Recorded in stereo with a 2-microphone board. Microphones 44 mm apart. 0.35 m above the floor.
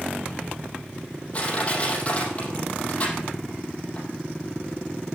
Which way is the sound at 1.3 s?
35° left (ahead or behind).